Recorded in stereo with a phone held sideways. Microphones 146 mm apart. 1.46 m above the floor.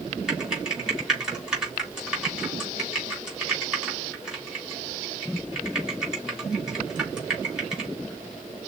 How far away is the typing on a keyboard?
About 3.5 m.